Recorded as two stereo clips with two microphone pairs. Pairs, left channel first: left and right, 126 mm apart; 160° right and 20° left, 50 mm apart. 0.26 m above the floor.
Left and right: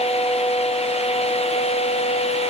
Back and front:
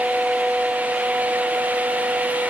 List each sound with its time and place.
Only background noise.